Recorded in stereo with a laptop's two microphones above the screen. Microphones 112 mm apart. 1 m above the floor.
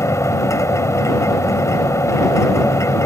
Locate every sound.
0.0 s a machine running: 25° left (ahead or behind)